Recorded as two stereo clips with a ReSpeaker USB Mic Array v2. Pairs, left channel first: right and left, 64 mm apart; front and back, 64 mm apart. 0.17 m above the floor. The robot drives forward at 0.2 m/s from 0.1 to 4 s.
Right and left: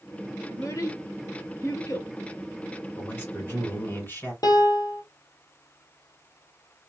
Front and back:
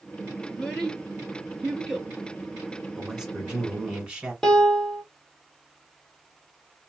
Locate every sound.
0.5 s a child speaking: 75° right, 1.9 m; by 2.1 s 85° right, 1.9 m
3.0 s a man speaking: 100° right, 1.7 m; by 4.3 s 110° right, 1.7 m
4.4 s a piano: 85° right, 1.1 m